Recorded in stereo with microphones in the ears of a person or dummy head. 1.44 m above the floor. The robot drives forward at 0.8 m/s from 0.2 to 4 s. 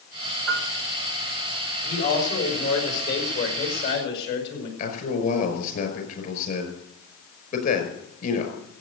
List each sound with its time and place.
0.5 s a piano: 70° right (ahead or behind), 1.7 m; by 0.7 s 75° right (ahead or behind), 1.7 m
1.8 s a man speaking: 45° left (ahead or behind), 6.5 m; by 4.7 s 60° left (ahead or behind), 5.5 m
4.8 s a man speaking: 50° left (ahead or behind), 5.5 m